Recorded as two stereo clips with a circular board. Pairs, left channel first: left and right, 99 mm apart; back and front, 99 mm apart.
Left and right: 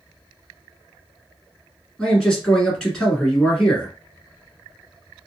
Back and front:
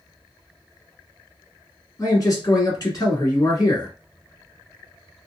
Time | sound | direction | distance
2.0 | a man speaking | 170° left | 1.4 m